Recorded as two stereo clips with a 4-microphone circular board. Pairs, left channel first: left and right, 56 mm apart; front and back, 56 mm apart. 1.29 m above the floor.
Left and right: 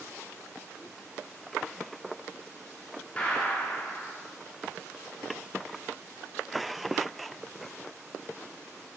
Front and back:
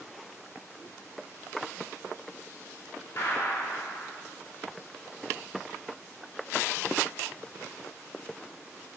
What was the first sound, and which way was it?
A gunshot, 25° left.